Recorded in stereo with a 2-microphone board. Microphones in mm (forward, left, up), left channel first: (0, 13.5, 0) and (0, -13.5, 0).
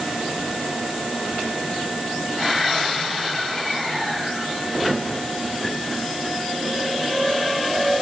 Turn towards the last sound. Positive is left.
No sound to turn to.